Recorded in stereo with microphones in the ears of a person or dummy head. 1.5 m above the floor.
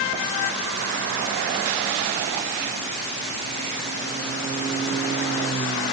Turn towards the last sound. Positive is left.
No sound to turn to.